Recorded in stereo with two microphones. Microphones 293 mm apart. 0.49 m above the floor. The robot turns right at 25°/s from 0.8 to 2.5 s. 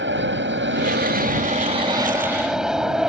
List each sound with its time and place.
0.0 s an aircraft: 45° right; by 3.1 s straight ahead